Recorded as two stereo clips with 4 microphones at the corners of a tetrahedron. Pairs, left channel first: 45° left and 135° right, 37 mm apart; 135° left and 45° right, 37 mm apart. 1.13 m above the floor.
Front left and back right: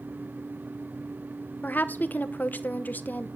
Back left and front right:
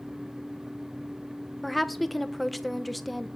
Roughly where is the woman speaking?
Ahead left.